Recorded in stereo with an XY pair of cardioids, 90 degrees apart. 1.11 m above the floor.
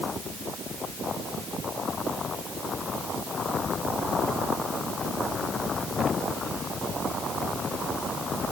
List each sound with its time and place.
Only background noise.